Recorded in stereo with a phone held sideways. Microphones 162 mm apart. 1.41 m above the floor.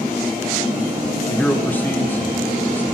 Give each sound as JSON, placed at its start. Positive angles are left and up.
{"t": 1.3, "sound": "a man speaking", "side_deg": 10, "distance_m": 1.1}